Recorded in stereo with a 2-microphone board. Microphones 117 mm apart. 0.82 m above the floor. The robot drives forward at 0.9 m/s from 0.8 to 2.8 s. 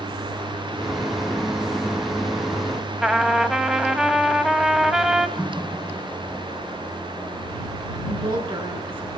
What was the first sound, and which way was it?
A trumpet, 5° right (ahead or behind).